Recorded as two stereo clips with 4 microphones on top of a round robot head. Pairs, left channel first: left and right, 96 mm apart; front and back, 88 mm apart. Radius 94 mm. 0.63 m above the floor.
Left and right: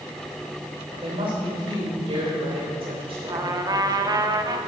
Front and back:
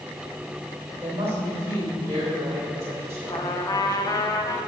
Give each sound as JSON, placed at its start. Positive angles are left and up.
{"t": 0.9, "sound": "a woman speaking", "azimuth_deg": -115, "distance_m": 3.0}
{"t": 3.3, "sound": "a trumpet", "azimuth_deg": -45, "distance_m": 0.8}